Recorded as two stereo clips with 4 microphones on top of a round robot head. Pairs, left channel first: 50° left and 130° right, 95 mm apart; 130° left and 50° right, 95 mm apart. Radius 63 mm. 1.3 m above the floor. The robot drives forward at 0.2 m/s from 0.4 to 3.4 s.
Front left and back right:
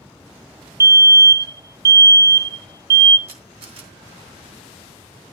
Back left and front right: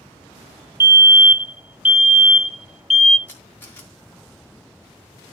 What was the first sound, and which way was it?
A fire alarm, 100° right.